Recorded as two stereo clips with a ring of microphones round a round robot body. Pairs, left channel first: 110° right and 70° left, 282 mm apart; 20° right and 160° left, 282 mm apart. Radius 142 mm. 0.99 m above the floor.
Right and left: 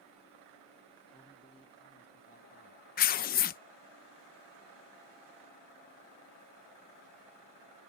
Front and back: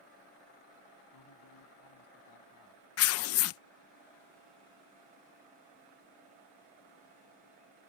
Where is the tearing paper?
55° right.